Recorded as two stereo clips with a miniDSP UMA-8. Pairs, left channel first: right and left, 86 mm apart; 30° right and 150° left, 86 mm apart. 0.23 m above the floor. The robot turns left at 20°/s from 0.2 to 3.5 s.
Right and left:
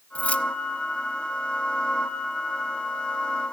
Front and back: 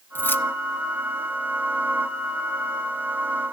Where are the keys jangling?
35° right, 0.8 m; by 0.5 s 40° right, 0.8 m.